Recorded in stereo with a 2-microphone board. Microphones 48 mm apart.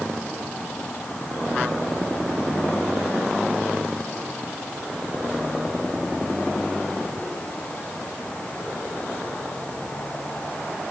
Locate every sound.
Only background noise.